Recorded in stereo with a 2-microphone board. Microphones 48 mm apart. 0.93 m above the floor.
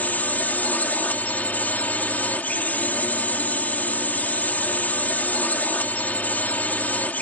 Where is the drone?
35° left (ahead or behind).